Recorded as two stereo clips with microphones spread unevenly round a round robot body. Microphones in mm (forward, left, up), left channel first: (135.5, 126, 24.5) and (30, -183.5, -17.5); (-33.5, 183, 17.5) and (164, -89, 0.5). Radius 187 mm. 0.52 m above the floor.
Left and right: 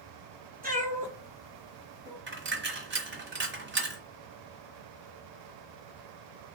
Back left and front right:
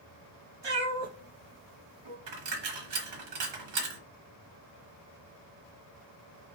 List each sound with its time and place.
0.6 s a cat meowing: 45° right, 2 m; by 2.2 s 25° right, 2.5 m
2.3 s a dropped coin: 50° right, 1.1 m